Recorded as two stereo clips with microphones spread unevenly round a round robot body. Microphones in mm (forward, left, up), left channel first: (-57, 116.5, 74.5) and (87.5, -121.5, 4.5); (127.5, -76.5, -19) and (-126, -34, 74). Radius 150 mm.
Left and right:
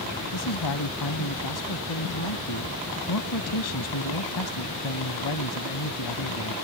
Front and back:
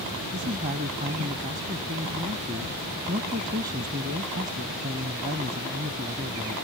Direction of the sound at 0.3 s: 105° left.